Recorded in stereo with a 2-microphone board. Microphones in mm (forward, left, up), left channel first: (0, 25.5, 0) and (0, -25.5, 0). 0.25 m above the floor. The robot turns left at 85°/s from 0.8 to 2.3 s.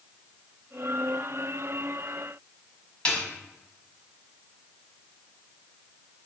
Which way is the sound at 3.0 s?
25° left (ahead or behind).